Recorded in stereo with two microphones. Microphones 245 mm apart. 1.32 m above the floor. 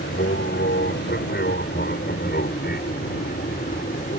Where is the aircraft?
45° left (ahead or behind); by 4.2 s 35° left (ahead or behind).